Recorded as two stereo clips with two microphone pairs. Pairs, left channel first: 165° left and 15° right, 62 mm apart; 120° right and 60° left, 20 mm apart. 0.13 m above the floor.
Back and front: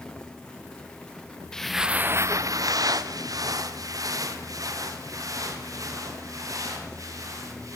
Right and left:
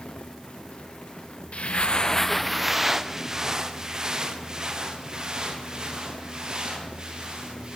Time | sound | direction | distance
1.5 | footsteps | 115° right | 0.9 m